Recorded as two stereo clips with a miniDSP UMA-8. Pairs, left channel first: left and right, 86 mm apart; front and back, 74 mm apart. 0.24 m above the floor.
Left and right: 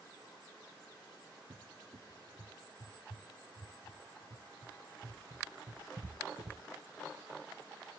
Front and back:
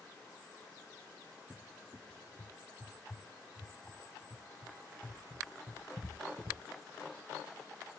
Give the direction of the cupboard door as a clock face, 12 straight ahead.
4 o'clock.